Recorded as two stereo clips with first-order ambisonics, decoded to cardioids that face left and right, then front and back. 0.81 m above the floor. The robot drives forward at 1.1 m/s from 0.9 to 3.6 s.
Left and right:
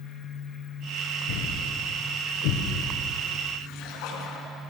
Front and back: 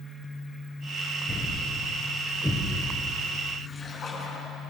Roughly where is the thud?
Left.